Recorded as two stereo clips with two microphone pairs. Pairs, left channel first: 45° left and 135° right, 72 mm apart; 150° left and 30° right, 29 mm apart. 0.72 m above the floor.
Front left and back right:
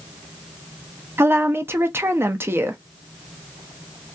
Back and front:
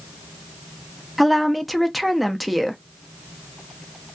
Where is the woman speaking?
120° right, 0.7 m.